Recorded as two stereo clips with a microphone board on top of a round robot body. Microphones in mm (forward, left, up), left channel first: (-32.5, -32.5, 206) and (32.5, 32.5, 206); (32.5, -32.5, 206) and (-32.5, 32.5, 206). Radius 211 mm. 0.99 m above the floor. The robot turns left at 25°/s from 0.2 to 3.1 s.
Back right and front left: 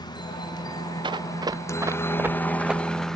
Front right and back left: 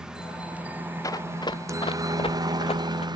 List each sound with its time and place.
0.0 s a helicopter: 145° right; by 3.2 s 140° left
1.0 s running footsteps: 10° left; by 3.1 s 45° right